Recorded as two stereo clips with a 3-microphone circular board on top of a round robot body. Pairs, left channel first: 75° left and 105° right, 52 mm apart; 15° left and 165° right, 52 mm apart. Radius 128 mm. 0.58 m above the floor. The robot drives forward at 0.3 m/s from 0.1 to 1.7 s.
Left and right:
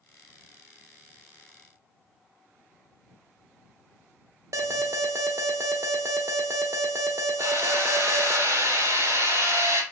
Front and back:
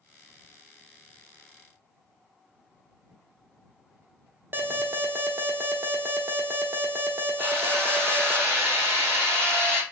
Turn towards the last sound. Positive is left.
turn(degrees=-115)